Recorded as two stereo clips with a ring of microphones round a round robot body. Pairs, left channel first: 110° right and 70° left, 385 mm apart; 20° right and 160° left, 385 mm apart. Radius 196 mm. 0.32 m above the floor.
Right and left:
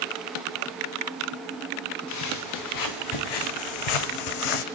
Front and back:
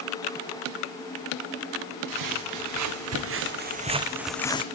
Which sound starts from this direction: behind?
Footsteps, at 2.1 s.